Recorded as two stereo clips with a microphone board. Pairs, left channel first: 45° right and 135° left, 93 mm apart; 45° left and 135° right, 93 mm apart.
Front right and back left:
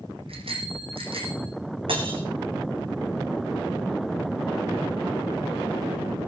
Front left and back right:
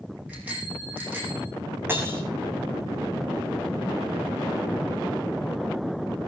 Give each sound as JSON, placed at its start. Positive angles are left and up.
{"t": 0.3, "sound": "a bicycle bell", "azimuth_deg": 150, "distance_m": 6.5}
{"t": 1.9, "sound": "breaking glass", "azimuth_deg": 160, "distance_m": 3.5}